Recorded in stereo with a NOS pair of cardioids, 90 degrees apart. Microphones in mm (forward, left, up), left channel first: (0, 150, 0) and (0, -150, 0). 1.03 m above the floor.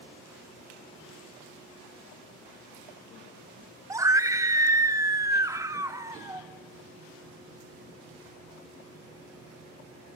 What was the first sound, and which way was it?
A scream, 10° right.